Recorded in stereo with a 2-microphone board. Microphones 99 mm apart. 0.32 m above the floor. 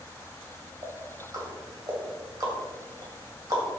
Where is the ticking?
40° right (ahead or behind), 2.0 m.